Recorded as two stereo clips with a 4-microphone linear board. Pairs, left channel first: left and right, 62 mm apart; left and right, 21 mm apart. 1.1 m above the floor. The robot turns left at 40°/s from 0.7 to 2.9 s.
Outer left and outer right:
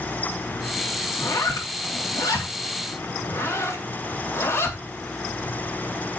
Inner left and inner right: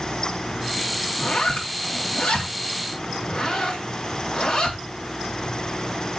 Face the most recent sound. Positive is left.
turn(degrees=45)  # may be behind; listen again after turning